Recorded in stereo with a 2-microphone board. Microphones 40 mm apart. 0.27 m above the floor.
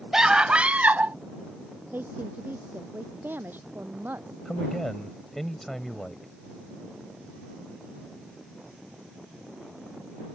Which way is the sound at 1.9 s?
55° right (ahead or behind).